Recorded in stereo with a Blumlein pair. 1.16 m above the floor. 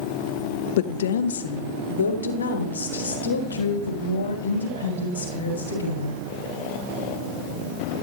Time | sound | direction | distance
0.8 | a woman speaking | 55° left | 1.0 m